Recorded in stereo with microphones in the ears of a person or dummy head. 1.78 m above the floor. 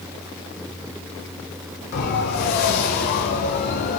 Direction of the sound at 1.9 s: 60° left (ahead or behind).